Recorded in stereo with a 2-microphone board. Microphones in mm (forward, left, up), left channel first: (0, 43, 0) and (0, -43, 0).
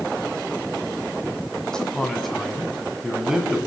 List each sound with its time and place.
1.7 s a man speaking: 10° left (ahead or behind), 3.5 m; by 3.6 s 10° right (ahead or behind), 4 m